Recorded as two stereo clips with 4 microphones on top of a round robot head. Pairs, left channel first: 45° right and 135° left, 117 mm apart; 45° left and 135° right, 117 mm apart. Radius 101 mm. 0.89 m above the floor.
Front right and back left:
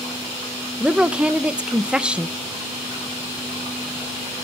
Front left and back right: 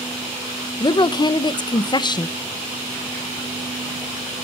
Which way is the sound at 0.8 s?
60° left.